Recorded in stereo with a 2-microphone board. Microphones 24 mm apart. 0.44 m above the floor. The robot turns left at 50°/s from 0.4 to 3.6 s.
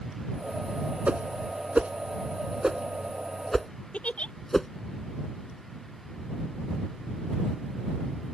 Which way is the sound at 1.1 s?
65° right (ahead or behind).